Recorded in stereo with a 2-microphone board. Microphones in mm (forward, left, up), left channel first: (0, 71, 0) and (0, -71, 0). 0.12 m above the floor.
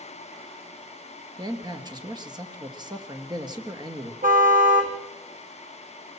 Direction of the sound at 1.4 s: 30° right (ahead or behind).